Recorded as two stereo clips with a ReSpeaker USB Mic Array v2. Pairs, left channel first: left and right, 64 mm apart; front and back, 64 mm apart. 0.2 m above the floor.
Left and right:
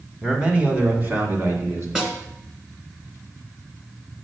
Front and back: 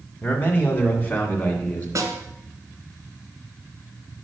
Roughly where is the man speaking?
Ahead right.